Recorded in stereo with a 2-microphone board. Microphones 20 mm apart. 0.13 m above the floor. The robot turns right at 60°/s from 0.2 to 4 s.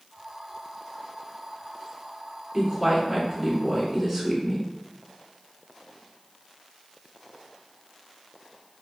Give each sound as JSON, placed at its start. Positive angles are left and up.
{"t": 2.5, "sound": "a woman speaking", "side_deg": -5, "distance_m": 1.4}